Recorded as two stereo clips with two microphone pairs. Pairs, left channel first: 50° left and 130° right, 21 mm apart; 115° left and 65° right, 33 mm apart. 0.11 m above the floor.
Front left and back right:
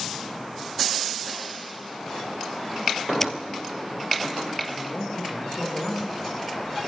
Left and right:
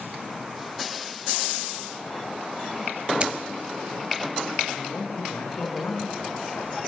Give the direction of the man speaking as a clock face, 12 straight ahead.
8 o'clock.